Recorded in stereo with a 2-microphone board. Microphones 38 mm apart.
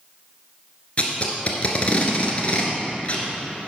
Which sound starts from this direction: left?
Tape being pulled, at 1.0 s.